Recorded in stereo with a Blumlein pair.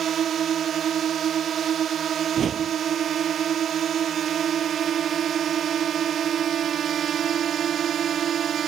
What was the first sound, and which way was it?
A drone, 25° right.